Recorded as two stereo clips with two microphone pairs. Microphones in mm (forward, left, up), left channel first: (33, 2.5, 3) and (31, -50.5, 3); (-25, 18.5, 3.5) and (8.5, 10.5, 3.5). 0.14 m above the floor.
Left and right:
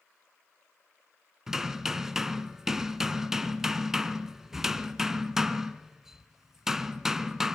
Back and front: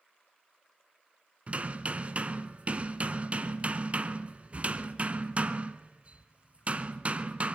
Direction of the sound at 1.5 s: 15° right.